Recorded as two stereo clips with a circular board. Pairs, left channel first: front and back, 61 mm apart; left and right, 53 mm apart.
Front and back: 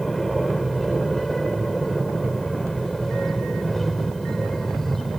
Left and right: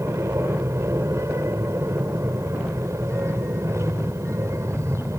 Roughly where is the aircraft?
Right.